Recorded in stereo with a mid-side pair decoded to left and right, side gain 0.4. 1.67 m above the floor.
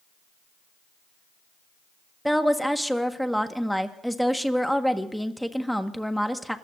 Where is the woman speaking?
Straight ahead, 1.6 m.